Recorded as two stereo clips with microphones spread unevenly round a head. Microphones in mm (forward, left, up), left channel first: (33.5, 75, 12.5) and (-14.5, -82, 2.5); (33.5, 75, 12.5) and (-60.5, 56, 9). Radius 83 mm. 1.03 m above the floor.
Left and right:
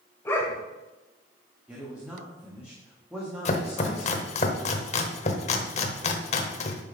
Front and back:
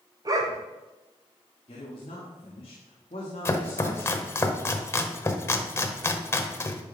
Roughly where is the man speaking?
Ahead right.